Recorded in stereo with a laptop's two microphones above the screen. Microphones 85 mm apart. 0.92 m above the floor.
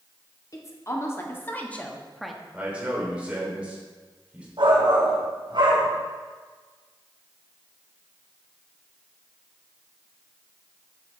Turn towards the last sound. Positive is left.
turn(degrees=-70)  # may be behind; listen again after turning